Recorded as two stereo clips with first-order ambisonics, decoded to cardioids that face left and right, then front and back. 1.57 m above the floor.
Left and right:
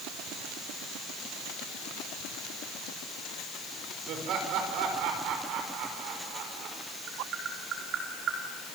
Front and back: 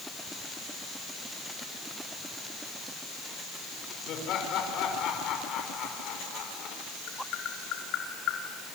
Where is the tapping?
40° right, 4.5 m.